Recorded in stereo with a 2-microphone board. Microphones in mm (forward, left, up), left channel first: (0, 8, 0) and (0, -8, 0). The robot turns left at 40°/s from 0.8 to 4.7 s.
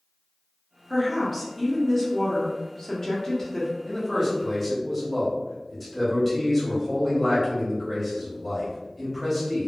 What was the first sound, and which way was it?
A woman speaking, centre (ahead or behind).